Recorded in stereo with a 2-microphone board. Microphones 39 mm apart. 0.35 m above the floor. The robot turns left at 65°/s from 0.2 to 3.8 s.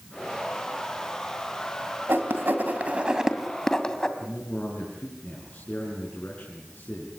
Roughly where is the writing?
Right.